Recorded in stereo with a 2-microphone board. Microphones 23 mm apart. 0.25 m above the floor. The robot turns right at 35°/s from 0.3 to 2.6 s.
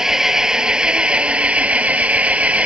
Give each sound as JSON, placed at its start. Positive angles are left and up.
{"t": 0.0, "sound": "an engine running", "azimuth_deg": -155}